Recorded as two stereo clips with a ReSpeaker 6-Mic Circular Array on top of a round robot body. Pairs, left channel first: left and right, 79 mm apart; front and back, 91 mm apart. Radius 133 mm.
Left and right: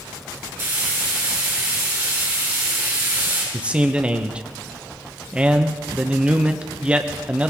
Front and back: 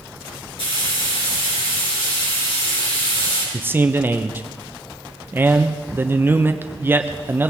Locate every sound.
0.6 s frying: 30° right, 5 m
3.5 s a man speaking: 145° right, 1.0 m